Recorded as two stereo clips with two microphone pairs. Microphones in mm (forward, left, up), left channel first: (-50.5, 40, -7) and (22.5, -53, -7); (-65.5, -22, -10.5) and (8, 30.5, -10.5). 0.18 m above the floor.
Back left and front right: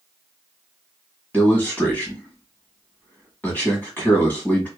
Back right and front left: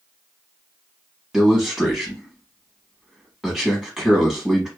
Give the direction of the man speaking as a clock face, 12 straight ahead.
8 o'clock.